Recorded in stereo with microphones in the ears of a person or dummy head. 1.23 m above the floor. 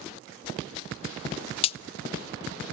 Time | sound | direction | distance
1.6 | a crack | 30° left (ahead or behind) | 0.5 m